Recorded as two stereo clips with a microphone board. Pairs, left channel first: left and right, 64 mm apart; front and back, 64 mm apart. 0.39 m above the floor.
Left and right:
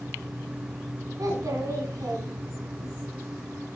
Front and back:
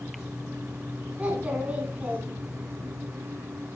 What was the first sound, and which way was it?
A child speaking, 115° right.